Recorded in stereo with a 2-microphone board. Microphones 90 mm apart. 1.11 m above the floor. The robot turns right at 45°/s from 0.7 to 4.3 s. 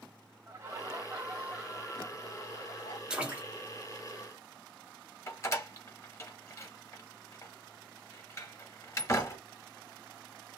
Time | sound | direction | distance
0.5 | laughter | 25° right | 1.4 m
3.1 | a splash | 10° right (ahead or behind) | 0.8 m
5.3 | a door slam | 30° left (ahead or behind) | 0.8 m